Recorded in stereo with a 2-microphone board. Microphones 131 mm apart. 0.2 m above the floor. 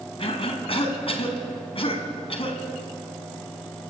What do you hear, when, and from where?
0.2 s a cough: 45° left (ahead or behind), 1.7 m